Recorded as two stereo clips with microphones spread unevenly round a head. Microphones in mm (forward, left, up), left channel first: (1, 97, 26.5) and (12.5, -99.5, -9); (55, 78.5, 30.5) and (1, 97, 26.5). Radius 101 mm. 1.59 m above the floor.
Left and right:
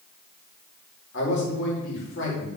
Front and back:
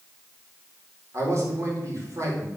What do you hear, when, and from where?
1.1 s a man speaking: 125° left, 4.5 m